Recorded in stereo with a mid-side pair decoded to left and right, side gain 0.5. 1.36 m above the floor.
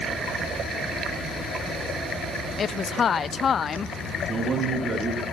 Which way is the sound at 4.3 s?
40° right.